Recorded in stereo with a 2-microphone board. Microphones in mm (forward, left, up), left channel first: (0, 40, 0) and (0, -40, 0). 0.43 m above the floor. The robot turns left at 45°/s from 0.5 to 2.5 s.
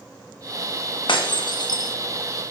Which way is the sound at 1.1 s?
80° left.